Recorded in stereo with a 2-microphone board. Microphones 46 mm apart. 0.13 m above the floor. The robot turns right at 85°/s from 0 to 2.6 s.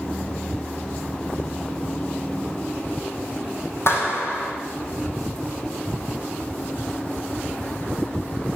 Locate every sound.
3.9 s a clap: 60° left (ahead or behind), 4.5 m